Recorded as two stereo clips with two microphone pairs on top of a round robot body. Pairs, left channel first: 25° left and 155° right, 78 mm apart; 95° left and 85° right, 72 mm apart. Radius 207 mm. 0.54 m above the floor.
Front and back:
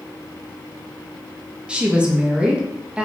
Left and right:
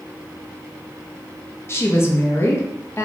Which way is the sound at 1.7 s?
135° left.